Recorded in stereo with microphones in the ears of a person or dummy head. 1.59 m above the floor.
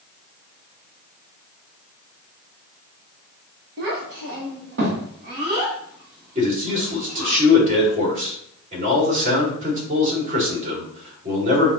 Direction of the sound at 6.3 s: 35° right (ahead or behind).